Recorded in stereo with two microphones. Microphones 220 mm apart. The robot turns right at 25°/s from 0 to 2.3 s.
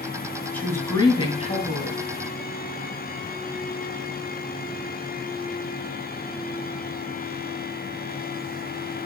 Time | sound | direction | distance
0.5 | a woman speaking | 10° left | 2.5 m